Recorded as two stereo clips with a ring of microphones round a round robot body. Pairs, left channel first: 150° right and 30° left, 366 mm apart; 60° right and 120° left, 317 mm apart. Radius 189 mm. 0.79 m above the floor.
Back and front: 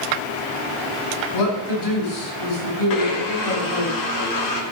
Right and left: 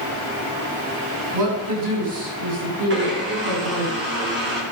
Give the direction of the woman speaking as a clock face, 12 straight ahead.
6 o'clock.